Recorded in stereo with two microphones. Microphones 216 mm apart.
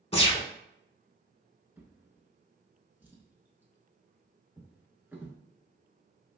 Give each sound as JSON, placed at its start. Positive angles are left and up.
{"t": 0.1, "sound": "a gunshot", "side_deg": 30, "distance_m": 0.7}
{"t": 1.8, "sound": "a drawer", "side_deg": -10, "distance_m": 0.6}